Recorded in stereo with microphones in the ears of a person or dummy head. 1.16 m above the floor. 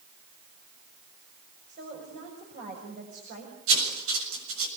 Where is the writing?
85° right, 6.5 m.